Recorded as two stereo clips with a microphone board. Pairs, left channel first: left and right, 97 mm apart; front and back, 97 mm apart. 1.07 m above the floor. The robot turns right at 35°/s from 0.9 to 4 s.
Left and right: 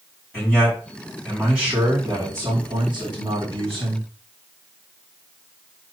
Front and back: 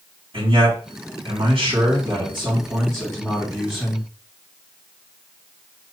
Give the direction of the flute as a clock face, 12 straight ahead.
No flute in this recording.